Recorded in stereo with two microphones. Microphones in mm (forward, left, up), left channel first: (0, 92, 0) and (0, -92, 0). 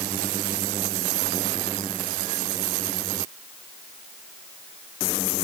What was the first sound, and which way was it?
Only background noise.